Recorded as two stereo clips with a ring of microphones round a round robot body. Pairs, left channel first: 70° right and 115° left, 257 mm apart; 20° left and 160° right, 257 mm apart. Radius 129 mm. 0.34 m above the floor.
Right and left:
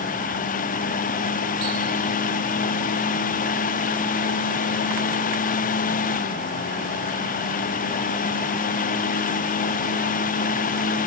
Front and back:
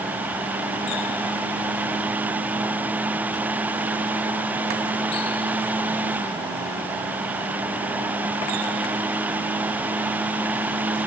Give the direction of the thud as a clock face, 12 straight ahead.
I don't hear a thud.